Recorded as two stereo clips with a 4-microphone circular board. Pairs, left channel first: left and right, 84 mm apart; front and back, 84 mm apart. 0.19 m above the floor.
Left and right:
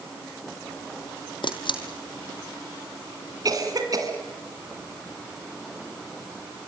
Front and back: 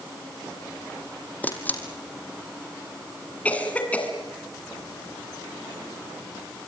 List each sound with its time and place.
1.4 s a camera shutter: 70° left, 2.5 m
3.5 s a cough: 65° right, 2 m